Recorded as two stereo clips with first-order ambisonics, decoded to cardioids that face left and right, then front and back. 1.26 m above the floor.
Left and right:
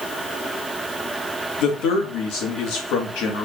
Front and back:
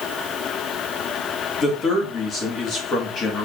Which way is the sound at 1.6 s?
60° left.